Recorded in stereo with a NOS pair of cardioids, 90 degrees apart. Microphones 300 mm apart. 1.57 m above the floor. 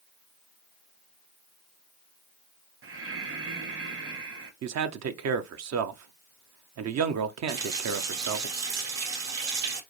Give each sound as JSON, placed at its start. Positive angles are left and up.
{"t": 2.8, "sound": "breathing", "azimuth_deg": -45, "distance_m": 1.4}
{"t": 4.6, "sound": "a man speaking", "azimuth_deg": -60, "distance_m": 0.9}
{"t": 7.5, "sound": "a running tap", "azimuth_deg": -65, "distance_m": 1.9}